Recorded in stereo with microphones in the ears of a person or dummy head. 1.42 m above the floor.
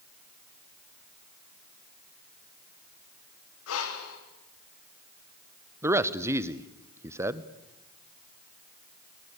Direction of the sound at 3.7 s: 85° left.